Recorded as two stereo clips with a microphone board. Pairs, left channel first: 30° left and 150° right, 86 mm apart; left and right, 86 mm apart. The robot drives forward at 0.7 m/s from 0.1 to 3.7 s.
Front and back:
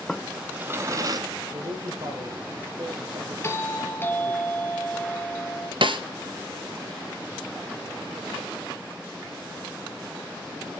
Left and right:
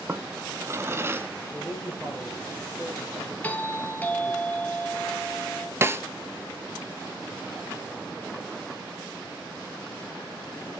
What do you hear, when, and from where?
0.1 s a drawer: 50° right, 0.7 m; by 1.3 s 145° right, 0.8 m
1.5 s a man speaking: 160° right, 4.5 m; by 4.4 s 165° right, 6 m
3.4 s a doorbell: 40° left, 1.6 m; by 5.7 s 50° left, 1.5 m
5.8 s a snare drum: 150° right, 0.8 m